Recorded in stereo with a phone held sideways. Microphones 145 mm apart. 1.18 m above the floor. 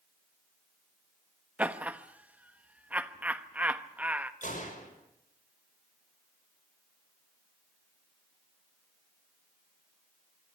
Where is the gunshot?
60° left (ahead or behind), 6.5 m.